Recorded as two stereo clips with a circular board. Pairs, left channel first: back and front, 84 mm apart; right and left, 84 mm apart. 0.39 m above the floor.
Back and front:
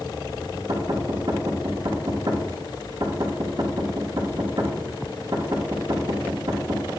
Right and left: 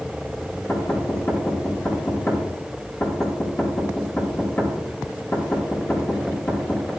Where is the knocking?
30° right, 4.5 m.